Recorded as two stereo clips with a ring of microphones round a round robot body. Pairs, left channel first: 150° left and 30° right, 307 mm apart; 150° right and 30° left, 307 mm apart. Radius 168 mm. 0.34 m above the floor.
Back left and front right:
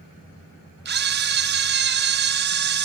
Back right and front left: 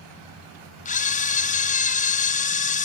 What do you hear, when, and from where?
0.8 s a camera shutter: 85° right, 2 m